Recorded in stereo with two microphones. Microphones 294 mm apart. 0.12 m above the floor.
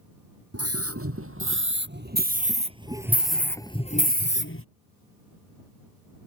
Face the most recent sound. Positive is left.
turn(degrees=45)  # may be behind; listen again after turning